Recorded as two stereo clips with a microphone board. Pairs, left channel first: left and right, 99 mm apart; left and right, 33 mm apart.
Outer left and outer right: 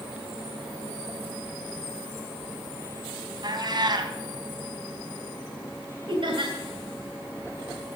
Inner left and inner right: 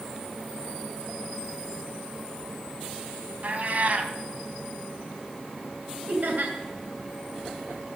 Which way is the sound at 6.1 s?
60° right (ahead or behind).